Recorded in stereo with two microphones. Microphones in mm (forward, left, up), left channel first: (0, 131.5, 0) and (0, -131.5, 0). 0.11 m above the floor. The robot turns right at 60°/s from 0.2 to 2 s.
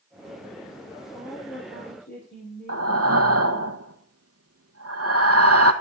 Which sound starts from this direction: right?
Breathing, at 2.7 s.